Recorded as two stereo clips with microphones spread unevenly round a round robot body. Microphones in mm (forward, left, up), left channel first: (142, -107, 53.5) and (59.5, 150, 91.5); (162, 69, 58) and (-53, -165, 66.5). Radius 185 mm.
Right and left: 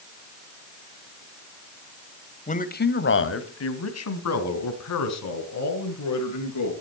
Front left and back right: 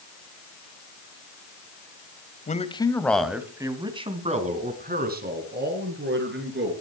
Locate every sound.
2.5 s a man speaking: 15° right, 1.8 m; by 6.7 s 80° right, 5.5 m